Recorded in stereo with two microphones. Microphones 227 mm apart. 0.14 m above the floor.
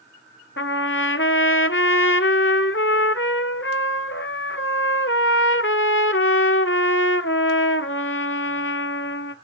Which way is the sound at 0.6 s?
65° left (ahead or behind).